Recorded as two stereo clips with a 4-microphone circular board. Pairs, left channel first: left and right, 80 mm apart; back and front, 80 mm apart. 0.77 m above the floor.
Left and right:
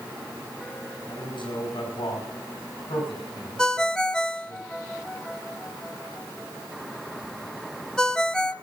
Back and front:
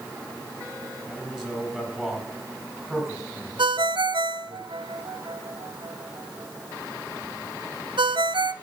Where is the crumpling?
I don't hear crumpling.